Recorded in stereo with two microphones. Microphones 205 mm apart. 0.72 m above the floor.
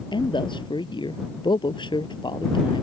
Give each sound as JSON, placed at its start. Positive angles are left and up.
{"t": 0.1, "sound": "a man speaking", "side_deg": 20}